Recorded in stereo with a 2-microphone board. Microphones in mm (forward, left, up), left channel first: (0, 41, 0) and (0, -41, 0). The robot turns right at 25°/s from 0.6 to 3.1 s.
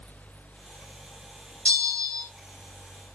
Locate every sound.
1.6 s a bell: 15° left (ahead or behind), 0.9 m; by 2.3 s 5° left (ahead or behind), 0.9 m